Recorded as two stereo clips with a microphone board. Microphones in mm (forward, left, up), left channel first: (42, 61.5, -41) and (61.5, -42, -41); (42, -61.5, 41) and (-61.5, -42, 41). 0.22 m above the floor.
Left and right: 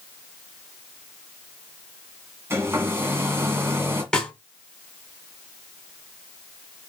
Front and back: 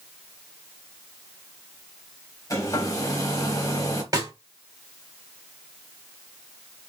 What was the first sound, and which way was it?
A hair dryer, 35° right.